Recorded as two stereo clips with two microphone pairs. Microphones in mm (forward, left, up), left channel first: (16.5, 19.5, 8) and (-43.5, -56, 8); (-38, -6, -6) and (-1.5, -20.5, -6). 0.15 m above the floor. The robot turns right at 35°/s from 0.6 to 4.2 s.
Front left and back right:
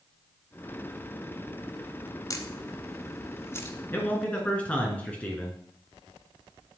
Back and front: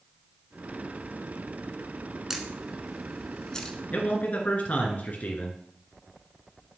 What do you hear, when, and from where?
2.3 s a camera shutter: 50° left, 1.1 m; by 3.8 s 105° left, 1.1 m
3.9 s a man speaking: 115° left, 2.5 m; by 5.5 s 125° left, 2.5 m